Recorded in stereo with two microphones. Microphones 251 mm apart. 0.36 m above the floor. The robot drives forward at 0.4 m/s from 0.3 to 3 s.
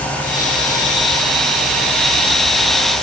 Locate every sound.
Only background noise.